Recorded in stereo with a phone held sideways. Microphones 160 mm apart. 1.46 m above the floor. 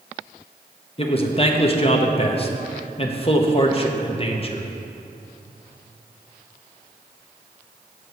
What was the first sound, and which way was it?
A man speaking, 35° left (ahead or behind).